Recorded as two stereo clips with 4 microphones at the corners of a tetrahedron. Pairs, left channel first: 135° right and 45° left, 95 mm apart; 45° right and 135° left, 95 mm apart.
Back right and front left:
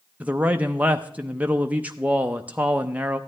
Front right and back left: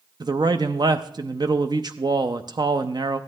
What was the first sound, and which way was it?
A man speaking, 115° left.